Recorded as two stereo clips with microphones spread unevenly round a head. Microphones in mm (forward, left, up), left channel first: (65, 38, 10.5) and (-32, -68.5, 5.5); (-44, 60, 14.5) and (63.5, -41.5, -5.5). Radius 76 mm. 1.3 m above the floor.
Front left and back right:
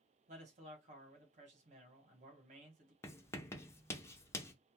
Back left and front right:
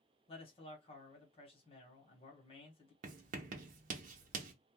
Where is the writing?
25° right, 0.6 m.